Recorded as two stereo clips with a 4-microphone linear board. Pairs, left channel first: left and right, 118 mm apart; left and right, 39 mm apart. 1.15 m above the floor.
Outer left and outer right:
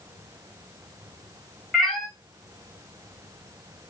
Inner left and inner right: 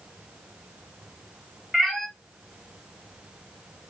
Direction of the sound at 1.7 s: 5° left (ahead or behind).